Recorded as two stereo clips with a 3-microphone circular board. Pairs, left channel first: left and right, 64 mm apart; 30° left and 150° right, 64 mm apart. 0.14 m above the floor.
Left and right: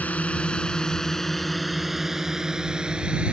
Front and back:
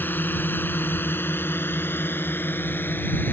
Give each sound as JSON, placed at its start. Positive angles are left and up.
{"t": 0.0, "sound": "a drone", "azimuth_deg": 45}